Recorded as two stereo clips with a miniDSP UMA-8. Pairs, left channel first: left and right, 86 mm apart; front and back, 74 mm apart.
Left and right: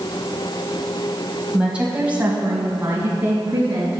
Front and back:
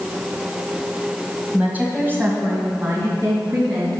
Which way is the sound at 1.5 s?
150° right.